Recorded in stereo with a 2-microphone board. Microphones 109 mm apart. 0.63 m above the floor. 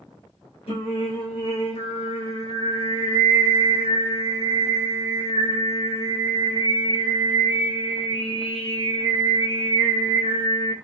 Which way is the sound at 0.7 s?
65° left (ahead or behind).